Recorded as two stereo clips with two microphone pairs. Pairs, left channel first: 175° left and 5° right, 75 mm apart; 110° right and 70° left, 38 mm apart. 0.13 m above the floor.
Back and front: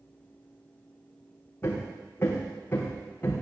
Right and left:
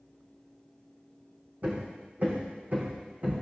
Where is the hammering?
115° left, 3.5 m.